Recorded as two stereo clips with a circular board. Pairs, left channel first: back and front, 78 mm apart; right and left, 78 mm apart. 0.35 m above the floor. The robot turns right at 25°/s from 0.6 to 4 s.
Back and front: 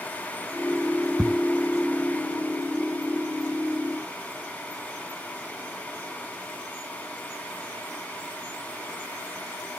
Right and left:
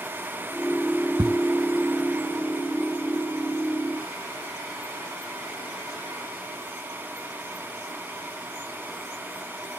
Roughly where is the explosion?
Left.